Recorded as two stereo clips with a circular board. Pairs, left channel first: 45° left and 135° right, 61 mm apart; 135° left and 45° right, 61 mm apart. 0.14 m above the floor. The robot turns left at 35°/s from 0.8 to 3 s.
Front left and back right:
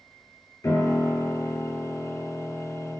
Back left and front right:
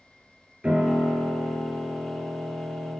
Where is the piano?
25° left, 2 m; by 3.0 s 50° right, 2 m.